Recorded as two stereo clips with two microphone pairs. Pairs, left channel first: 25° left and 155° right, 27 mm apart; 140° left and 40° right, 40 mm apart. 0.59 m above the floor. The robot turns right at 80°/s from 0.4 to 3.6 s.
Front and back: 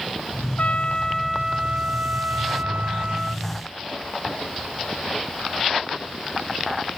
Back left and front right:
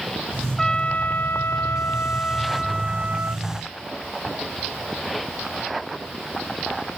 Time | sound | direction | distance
0.6 | a trumpet | 60° left | ?